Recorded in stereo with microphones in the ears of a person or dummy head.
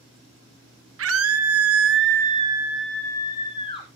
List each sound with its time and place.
1.0 s a scream: 75° right (ahead or behind), 1.4 m; by 3.9 s 30° left (ahead or behind), 1.4 m